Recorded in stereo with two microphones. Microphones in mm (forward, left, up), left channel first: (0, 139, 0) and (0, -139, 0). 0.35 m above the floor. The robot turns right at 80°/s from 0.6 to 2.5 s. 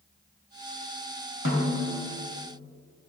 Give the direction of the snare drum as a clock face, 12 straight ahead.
9 o'clock.